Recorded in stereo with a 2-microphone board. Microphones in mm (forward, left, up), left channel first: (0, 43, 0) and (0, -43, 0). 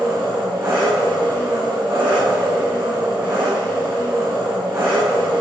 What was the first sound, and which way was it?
An engine running, 30° right (ahead or behind).